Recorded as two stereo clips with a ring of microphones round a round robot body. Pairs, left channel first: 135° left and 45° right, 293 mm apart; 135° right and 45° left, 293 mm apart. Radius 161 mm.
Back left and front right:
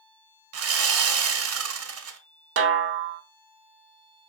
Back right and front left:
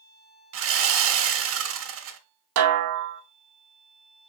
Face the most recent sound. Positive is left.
turn(degrees=5)